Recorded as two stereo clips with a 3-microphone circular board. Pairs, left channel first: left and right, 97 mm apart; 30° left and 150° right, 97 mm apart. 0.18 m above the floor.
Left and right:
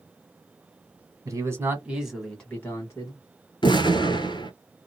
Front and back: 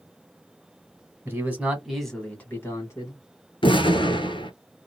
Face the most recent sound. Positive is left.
turn(degrees=55)